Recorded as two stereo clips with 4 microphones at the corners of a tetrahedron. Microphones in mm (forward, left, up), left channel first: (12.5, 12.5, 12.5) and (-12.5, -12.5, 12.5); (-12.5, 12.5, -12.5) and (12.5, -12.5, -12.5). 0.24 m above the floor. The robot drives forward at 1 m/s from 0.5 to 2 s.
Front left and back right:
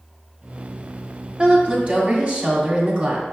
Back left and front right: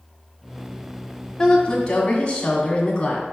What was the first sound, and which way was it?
A woman speaking, 170° right.